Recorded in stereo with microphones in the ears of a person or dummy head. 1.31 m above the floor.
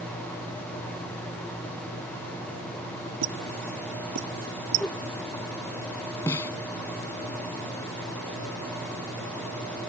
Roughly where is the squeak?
Right.